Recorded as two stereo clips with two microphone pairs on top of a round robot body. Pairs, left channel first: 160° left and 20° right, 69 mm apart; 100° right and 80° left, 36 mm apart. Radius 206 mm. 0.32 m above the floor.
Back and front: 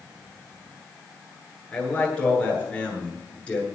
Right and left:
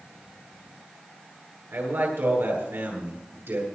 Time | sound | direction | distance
1.7 | a man speaking | 85° left | 9 m